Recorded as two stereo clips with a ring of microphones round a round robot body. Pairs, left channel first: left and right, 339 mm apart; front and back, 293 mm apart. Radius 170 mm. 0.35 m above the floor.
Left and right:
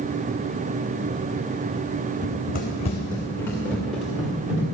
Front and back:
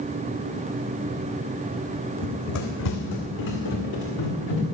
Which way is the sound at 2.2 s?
30° left.